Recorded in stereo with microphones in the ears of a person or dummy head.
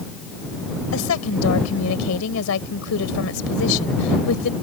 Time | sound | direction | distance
0.9 | a woman speaking | 80° left | ?